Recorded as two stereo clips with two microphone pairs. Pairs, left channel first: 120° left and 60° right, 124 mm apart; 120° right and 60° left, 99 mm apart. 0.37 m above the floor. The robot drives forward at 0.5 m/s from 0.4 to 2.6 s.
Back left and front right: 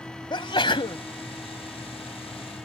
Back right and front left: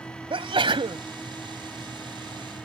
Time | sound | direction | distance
0.3 | a sneeze | 75° left | ?